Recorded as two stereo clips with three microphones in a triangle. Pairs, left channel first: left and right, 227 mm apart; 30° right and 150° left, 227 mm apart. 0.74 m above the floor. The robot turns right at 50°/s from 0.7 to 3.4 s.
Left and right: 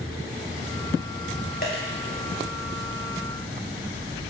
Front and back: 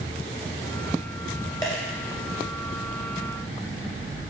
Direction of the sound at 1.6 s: 45° left.